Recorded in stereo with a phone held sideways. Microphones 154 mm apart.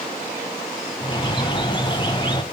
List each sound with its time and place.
1.0 s a bird: 30° left (ahead or behind), 0.8 m